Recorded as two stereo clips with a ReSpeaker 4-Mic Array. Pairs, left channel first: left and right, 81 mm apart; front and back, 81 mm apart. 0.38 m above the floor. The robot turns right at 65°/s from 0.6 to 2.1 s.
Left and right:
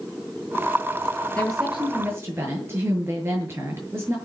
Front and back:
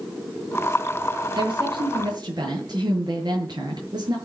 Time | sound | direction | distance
1.4 | a woman speaking | 165° left | 8 m